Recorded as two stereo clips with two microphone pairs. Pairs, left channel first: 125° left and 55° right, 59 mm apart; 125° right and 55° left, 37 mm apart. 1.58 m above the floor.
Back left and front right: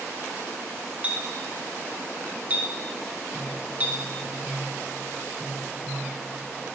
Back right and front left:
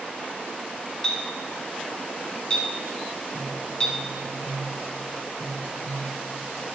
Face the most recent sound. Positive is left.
turn(degrees=55)